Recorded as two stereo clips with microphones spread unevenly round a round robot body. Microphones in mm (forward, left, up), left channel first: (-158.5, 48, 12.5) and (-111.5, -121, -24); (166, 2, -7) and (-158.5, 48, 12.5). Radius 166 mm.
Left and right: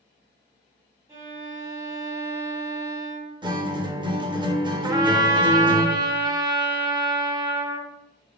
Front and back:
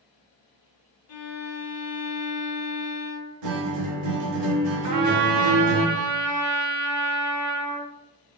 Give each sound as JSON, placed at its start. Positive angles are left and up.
{"t": 1.1, "sound": "a violin", "azimuth_deg": -15, "distance_m": 0.6}
{"t": 3.4, "sound": "a guitar", "azimuth_deg": -145, "distance_m": 0.5}
{"t": 4.8, "sound": "a trumpet", "azimuth_deg": -145, "distance_m": 0.5}